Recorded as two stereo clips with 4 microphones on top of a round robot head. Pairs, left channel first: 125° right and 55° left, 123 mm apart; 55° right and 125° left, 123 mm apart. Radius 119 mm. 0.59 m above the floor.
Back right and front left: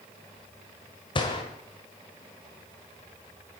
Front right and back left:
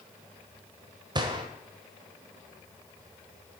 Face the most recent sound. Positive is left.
turn(degrees=-175)